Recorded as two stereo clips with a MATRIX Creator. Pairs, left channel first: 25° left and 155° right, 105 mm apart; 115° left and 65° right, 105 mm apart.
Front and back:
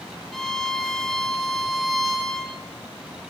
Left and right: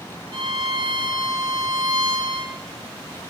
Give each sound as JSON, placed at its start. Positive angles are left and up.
{"t": 0.3, "sound": "a violin", "azimuth_deg": -65, "distance_m": 0.7}